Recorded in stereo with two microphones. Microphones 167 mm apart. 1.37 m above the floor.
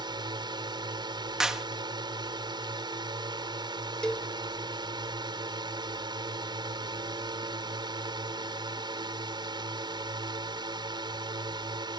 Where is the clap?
5° right (ahead or behind).